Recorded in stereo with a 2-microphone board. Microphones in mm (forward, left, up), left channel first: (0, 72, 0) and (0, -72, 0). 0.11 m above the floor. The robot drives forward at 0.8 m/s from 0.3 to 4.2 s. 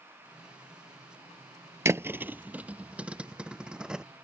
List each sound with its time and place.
1.9 s a thud: 20° right (ahead or behind); by 4.0 s 5° right (ahead or behind)